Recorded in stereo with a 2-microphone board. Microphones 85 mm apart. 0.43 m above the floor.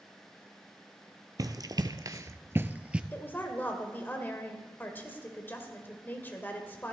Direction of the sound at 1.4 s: 50° right (ahead or behind).